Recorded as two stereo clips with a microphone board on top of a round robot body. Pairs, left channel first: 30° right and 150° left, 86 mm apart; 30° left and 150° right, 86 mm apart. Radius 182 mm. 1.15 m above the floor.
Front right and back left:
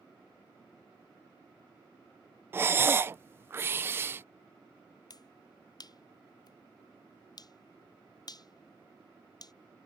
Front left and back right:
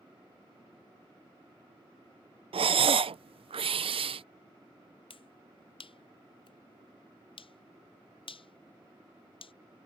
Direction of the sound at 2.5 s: 145° right.